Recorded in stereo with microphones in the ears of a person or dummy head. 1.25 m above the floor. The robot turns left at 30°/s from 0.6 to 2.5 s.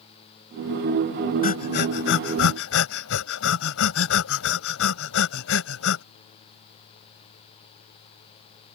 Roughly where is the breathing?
Left.